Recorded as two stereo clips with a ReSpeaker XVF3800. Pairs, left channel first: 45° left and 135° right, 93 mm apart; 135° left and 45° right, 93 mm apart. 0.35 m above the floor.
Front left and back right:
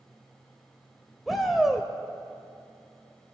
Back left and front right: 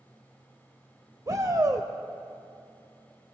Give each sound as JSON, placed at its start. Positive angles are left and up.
{"t": 1.3, "sound": "a shout", "azimuth_deg": -45, "distance_m": 1.1}